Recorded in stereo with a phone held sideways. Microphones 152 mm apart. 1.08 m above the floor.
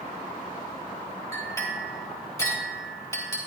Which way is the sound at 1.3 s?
20° left (ahead or behind).